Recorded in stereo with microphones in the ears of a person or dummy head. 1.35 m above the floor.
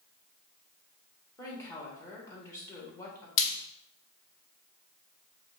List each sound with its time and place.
1.4 s a woman speaking: 20° left (ahead or behind), 1.7 m
3.4 s frying: 75° left (ahead or behind), 0.7 m